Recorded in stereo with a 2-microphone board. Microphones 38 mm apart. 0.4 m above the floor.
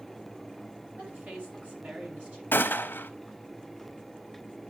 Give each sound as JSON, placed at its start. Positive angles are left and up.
{"t": 1.0, "sound": "a woman speaking", "side_deg": -40, "distance_m": 3.0}
{"t": 2.5, "sound": "a gunshot", "side_deg": 70, "distance_m": 0.7}